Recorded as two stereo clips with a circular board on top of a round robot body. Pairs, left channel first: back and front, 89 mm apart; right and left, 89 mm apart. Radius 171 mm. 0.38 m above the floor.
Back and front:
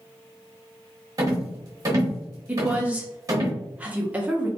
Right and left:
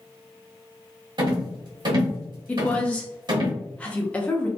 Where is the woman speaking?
45° right, 0.8 m.